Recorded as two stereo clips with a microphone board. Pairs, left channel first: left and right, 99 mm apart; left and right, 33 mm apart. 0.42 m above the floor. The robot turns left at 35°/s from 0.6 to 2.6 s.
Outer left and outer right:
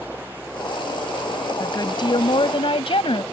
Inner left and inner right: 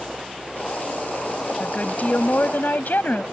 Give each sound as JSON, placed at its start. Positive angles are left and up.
{"t": 1.6, "sound": "a woman speaking", "azimuth_deg": 135}